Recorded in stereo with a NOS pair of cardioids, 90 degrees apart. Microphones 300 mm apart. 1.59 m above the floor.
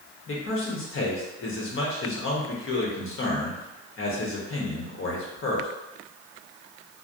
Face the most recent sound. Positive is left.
turn(degrees=45)